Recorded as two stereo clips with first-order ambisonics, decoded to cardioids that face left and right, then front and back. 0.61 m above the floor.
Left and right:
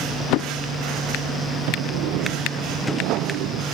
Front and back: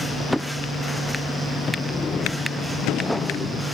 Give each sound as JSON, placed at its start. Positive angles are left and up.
{"t": 1.7, "sound": "a sliding door", "azimuth_deg": -70}